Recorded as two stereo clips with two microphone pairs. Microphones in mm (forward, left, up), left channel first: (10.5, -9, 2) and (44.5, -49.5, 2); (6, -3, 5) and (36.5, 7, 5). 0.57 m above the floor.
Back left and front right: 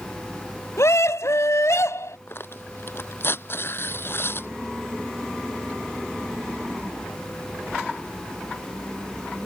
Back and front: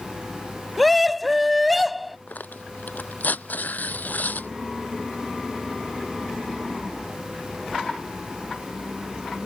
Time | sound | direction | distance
0.8 | a scream | 110° left | ?
2.3 | tearing paper | 175° left | ?